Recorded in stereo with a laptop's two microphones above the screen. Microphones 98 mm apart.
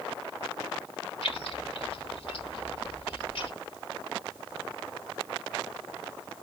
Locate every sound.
1.2 s keys jangling: 65° left (ahead or behind), 1.0 m